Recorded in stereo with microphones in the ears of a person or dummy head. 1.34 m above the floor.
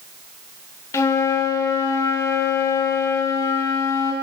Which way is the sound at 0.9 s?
20° left (ahead or behind).